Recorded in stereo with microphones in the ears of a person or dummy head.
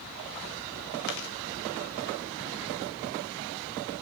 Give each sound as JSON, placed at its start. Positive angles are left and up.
{"t": 1.1, "sound": "chewing", "side_deg": 60, "distance_m": 1.0}